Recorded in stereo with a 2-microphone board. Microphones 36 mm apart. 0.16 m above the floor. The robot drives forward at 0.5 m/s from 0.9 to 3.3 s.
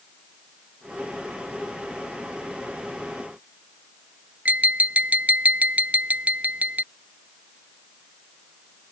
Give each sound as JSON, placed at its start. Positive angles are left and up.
{"t": 4.5, "sound": "tapping", "side_deg": -45}